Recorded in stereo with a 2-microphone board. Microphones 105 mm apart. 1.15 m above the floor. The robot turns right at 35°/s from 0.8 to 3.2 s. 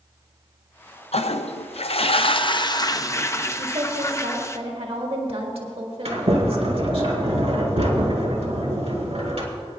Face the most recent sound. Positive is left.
turn(degrees=-75)  # may be behind; listen again after turning